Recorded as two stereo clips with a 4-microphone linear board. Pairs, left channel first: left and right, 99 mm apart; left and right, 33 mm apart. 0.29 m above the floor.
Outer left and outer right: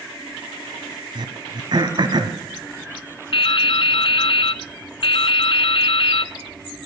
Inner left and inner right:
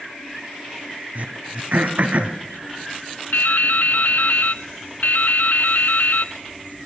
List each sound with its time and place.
1.1 s throat clearing: 50° right (ahead or behind), 1.4 m
3.3 s dripping: 65° left (ahead or behind), 0.5 m